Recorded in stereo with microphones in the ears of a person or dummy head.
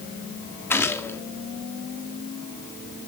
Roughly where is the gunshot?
Centre.